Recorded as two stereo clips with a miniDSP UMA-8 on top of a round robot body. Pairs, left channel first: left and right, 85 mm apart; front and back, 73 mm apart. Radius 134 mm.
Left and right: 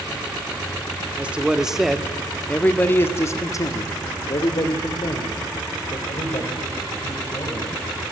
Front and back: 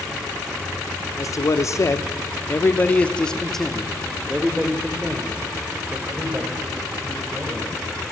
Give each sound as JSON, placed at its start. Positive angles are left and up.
{"t": 1.2, "sound": "a man speaking", "azimuth_deg": -20, "distance_m": 1.9}